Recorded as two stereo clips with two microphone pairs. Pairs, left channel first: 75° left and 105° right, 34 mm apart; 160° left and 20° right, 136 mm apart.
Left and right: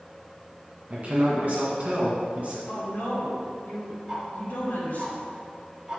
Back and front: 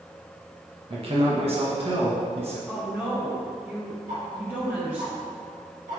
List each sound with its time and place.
0.9 s a man speaking: 60° right, 1.8 m
2.7 s a woman speaking: 60° left, 2 m
4.1 s ticking: 30° right, 1.9 m